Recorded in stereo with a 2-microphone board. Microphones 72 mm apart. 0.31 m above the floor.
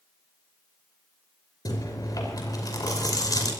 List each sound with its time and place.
1.6 s chewing: 60° left (ahead or behind), 5.5 m